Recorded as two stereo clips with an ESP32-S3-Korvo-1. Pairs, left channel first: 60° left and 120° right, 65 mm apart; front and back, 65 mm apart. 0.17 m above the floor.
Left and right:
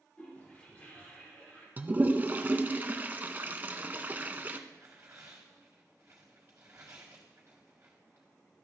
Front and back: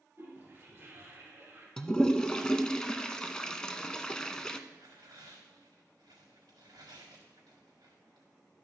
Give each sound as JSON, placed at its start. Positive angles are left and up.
{"t": 0.2, "sound": "a toilet flushing", "azimuth_deg": 125, "distance_m": 4.0}
{"t": 1.8, "sound": "a toilet flushing", "azimuth_deg": -75, "distance_m": 0.6}
{"t": 4.7, "sound": "tearing paper", "azimuth_deg": -175, "distance_m": 3.5}